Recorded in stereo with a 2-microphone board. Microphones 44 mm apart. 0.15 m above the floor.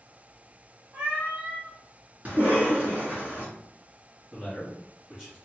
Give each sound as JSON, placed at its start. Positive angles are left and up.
{"t": 0.9, "sound": "a cat meowing", "side_deg": -40, "distance_m": 1.4}
{"t": 2.2, "sound": "a cough", "side_deg": -35, "distance_m": 1.8}
{"t": 4.3, "sound": "a man speaking", "side_deg": -10, "distance_m": 1.6}